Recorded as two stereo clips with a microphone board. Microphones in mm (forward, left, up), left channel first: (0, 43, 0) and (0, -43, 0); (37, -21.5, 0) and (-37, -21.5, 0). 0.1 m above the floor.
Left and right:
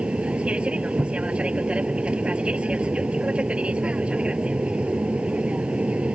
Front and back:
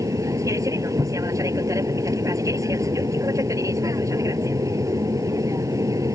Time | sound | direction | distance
0.0 | an aircraft | 165° right | ?